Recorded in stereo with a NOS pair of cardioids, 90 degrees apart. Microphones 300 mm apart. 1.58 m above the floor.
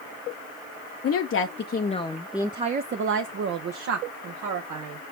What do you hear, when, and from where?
1.0 s a woman speaking: 50° left, 0.9 m; by 5.0 s 75° right, 1.6 m